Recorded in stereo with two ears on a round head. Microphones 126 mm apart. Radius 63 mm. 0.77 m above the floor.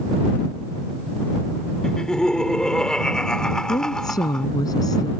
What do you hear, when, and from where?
1.8 s laughter: 5° left (ahead or behind)
3.7 s a woman speaking: 30° left (ahead or behind)